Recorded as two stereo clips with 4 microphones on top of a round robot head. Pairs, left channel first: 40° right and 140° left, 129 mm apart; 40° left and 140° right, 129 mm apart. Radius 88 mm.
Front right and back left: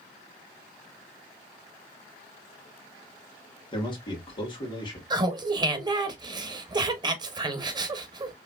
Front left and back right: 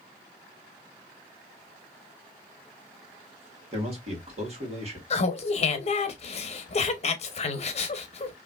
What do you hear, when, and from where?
3.7 s a man speaking: 95° right, 1.7 m
5.1 s laughter: 80° left, 0.8 m